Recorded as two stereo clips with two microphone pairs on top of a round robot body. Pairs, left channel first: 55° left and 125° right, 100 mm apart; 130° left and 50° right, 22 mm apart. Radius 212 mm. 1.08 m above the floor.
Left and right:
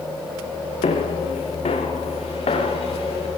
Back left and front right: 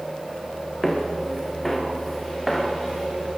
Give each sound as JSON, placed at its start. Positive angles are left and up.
{"t": 0.8, "sound": "footsteps", "azimuth_deg": 45, "distance_m": 5.5}